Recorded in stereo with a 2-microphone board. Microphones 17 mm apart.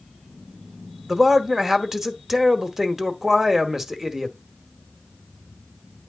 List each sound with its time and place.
1.1 s a man speaking: 20° right (ahead or behind), 0.9 m